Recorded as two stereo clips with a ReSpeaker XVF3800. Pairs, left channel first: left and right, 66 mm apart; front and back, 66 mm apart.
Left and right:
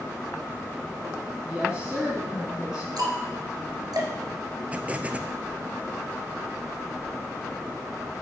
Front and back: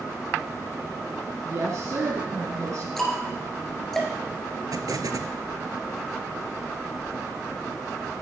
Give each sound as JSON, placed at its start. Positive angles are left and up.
{"t": 1.4, "sound": "a woman speaking", "azimuth_deg": -165, "distance_m": 1.8}
{"t": 3.0, "sound": "ticking", "azimuth_deg": -85, "distance_m": 2.5}
{"t": 4.7, "sound": "an explosion", "azimuth_deg": -155, "distance_m": 0.7}